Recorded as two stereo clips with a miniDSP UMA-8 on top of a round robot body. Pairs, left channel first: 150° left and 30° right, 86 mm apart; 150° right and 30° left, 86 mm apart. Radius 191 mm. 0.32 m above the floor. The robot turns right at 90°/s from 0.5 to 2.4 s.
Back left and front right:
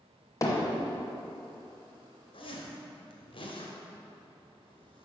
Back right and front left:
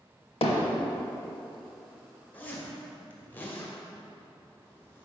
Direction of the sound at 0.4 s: 155° right.